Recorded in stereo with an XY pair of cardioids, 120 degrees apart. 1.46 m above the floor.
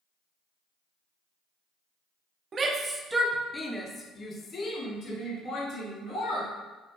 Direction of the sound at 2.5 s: 35° right.